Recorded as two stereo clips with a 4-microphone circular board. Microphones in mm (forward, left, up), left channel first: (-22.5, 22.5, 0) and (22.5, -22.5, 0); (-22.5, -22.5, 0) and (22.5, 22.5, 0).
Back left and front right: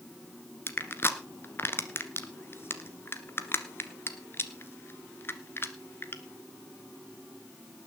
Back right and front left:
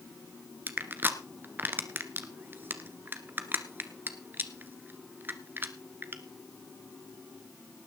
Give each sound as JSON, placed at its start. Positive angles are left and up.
{"t": 0.7, "sound": "crushing", "azimuth_deg": 95, "distance_m": 1.4}